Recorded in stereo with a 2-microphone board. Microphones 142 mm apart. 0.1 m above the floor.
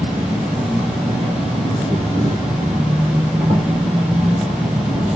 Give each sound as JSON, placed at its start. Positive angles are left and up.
{"t": 0.0, "sound": "an insect", "side_deg": -35, "distance_m": 3.0}